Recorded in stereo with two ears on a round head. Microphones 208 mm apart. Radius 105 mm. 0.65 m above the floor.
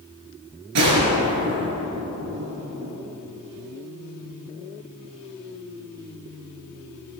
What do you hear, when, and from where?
0.8 s a gunshot: 80° right, 4 m